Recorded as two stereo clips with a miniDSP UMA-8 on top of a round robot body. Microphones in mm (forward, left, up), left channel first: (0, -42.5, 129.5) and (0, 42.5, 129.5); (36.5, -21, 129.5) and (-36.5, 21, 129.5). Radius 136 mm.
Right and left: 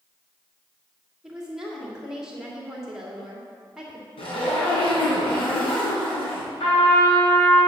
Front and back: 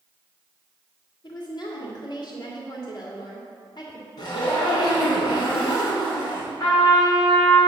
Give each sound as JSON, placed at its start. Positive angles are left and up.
{"t": 1.2, "sound": "a woman speaking", "azimuth_deg": 5, "distance_m": 2.0}
{"t": 4.2, "sound": "a zipper", "azimuth_deg": -75, "distance_m": 3.0}
{"t": 6.6, "sound": "a trumpet", "azimuth_deg": -85, "distance_m": 4.0}